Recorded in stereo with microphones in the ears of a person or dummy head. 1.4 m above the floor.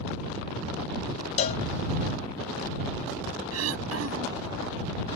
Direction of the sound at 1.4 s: 30° left (ahead or behind).